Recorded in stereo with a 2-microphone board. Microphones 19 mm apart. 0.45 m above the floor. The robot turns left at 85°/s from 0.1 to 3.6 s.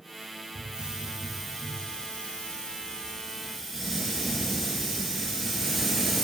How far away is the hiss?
About 1.6 m.